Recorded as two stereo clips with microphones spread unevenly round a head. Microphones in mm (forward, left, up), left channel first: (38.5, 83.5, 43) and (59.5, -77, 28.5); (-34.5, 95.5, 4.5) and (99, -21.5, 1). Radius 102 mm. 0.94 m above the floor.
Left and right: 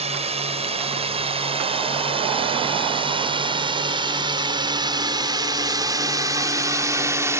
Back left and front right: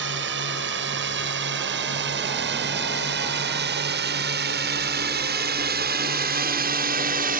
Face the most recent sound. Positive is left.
turn(degrees=-10)